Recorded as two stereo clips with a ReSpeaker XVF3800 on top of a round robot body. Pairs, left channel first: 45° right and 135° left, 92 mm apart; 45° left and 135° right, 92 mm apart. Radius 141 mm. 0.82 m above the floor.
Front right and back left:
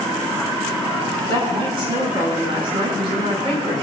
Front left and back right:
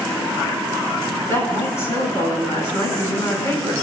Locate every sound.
1.3 s a woman speaking: 105° left, 8 m